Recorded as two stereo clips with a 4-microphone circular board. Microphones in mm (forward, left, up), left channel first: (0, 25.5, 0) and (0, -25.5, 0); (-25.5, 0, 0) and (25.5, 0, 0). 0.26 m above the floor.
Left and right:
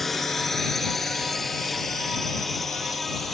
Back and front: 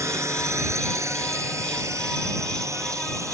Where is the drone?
5° left.